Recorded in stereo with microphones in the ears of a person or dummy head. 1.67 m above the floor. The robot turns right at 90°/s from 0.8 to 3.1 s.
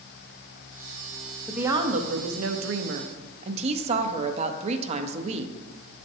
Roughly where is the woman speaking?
Behind.